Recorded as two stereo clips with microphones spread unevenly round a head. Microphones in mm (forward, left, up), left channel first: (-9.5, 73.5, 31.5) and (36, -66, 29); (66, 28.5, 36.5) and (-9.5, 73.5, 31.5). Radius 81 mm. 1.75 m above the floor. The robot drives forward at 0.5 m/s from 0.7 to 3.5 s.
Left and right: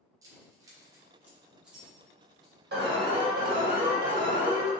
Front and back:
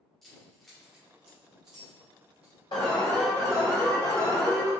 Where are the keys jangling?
110° right, 0.7 m; by 2.6 s 165° right, 1.3 m.